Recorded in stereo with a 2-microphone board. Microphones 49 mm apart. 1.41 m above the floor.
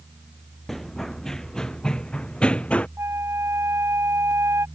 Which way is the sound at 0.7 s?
5° left (ahead or behind).